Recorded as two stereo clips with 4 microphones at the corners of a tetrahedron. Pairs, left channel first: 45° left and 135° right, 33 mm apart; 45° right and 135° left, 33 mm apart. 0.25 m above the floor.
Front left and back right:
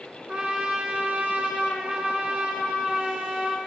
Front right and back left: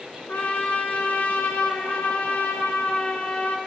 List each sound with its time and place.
0.3 s a trumpet: 75° right, 2.5 m